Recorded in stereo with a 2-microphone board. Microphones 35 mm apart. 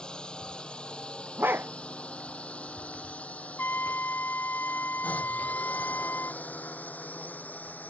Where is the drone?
25° left (ahead or behind); by 7.9 s 55° left (ahead or behind).